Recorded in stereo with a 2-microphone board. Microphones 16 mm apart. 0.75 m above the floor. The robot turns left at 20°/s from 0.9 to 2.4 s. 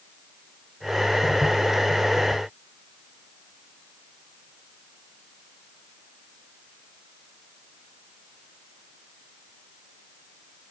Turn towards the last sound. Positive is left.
No sound to turn to.